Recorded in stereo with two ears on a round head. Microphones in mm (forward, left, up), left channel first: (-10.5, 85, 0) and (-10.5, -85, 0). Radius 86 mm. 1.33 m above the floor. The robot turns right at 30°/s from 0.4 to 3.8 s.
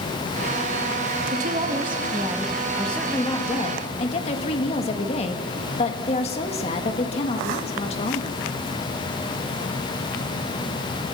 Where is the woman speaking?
45° right, 1.7 m; by 8.4 s 30° left, 1.7 m.